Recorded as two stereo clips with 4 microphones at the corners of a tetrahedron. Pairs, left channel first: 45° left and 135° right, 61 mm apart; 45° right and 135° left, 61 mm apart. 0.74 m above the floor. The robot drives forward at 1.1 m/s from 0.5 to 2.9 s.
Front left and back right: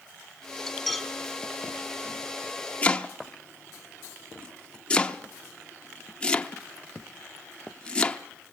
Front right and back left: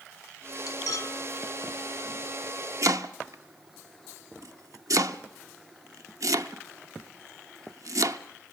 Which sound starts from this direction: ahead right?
Cutlery clinking, at 0.7 s.